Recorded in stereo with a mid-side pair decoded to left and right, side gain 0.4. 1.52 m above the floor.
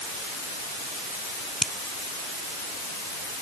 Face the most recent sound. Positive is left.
turn(degrees=-5)